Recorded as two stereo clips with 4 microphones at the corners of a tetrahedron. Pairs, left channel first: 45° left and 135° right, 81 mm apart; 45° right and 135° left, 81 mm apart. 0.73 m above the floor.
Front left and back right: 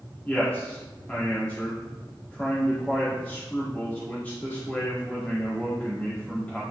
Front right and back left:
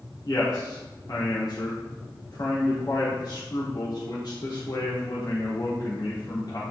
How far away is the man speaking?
About 1.7 m.